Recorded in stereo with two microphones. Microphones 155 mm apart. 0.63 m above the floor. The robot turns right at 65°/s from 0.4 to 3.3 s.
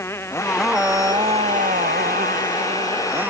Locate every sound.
0.0 s a motorcycle: 165° left; by 3.3 s 10° right